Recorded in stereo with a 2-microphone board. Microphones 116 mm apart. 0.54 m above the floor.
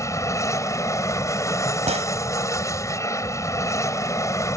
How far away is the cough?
I don't hear a cough.